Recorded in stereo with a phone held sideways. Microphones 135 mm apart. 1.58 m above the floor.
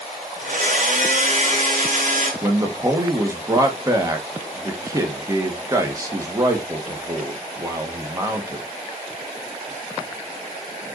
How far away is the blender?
About 3 m.